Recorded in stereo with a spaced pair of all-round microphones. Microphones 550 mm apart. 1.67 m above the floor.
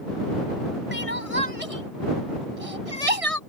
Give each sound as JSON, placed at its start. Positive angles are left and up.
{"t": 0.9, "sound": "crying", "side_deg": -80}